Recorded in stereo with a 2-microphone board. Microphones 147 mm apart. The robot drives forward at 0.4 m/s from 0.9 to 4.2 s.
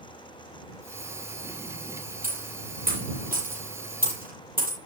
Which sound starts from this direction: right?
A dropped coin, at 2.2 s.